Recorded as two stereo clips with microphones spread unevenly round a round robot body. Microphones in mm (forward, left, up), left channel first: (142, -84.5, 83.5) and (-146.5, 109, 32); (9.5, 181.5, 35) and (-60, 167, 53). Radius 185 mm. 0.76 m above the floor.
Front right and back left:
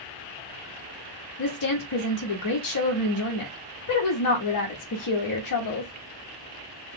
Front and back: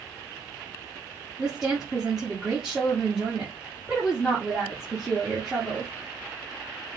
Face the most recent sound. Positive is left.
turn(degrees=-75)